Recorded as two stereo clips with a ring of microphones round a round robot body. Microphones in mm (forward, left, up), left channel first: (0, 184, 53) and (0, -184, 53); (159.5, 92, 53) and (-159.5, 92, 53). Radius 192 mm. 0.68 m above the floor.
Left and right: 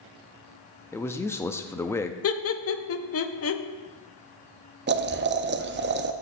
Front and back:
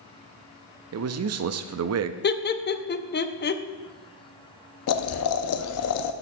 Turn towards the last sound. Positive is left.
turn(degrees=-30)